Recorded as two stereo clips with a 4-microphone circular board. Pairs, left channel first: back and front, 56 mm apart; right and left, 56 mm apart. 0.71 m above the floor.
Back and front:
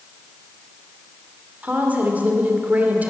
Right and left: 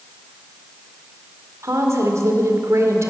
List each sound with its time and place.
1.6 s a woman speaking: 60° left, 2.0 m